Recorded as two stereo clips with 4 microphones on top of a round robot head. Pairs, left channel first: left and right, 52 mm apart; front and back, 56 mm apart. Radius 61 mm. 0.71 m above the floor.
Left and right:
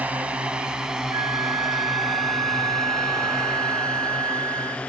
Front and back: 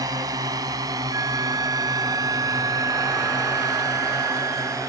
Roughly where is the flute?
Behind right.